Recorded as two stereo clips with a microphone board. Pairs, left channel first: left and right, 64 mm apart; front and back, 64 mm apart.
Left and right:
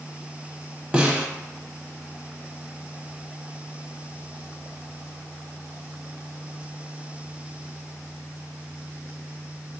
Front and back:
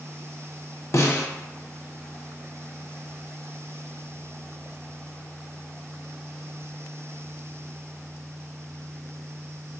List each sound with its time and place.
0.9 s a snare drum: 25° right, 0.6 m